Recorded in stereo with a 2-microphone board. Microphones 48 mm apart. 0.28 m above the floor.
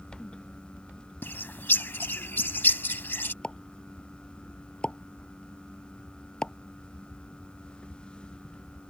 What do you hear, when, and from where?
1.2 s a bird: 50° left (ahead or behind)
3.4 s a pop: 20° left (ahead or behind)